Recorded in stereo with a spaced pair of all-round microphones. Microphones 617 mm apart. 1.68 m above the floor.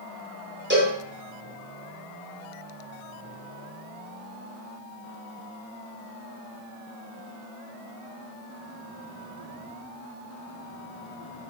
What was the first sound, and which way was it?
A cowbell, 20° right (ahead or behind).